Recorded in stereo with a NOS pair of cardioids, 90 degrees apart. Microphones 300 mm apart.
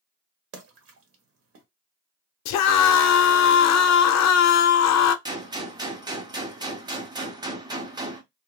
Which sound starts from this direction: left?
A scream, at 2.5 s.